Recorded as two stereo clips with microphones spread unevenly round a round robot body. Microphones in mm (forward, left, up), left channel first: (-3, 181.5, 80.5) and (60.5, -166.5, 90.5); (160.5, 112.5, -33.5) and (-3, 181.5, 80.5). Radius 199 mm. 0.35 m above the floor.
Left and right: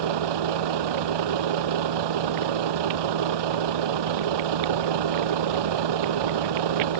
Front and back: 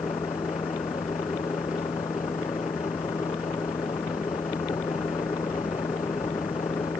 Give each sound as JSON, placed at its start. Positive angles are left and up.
{"t": 0.0, "sound": "a vehicle", "azimuth_deg": -105}